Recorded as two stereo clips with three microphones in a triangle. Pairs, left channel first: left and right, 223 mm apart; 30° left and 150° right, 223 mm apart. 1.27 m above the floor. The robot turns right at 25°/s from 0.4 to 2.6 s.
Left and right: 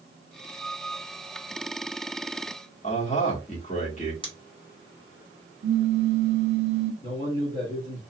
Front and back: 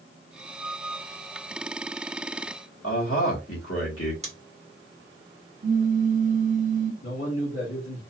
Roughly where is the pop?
Right.